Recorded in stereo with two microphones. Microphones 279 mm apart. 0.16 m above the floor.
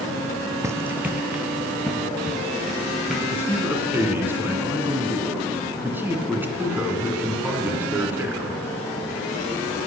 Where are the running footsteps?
10° right (ahead or behind), 0.5 m; by 4.1 s centre (ahead or behind), 3 m.